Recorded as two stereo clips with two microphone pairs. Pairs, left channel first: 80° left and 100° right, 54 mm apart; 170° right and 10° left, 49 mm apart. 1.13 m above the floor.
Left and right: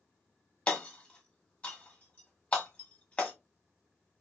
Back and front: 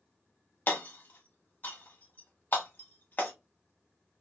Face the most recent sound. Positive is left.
turn(degrees=145)